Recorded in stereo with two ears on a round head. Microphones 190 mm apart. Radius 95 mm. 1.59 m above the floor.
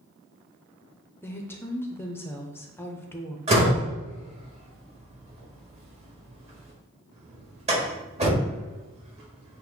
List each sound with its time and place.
1.2 s a woman speaking: 10° left (ahead or behind), 0.6 m
3.5 s a door slam: 30° right (ahead or behind), 1.7 m